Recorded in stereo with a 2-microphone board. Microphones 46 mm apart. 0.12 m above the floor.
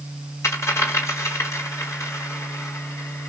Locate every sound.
0.4 s a dropped coin: 80° left, 2 m